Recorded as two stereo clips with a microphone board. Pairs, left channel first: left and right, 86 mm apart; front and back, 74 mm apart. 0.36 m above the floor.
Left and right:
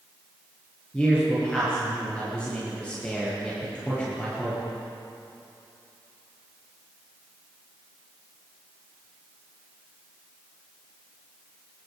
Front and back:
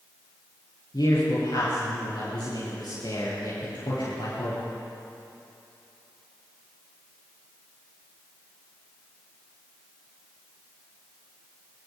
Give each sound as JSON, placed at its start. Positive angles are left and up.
{"t": 0.9, "sound": "a man speaking", "azimuth_deg": 15, "distance_m": 8.5}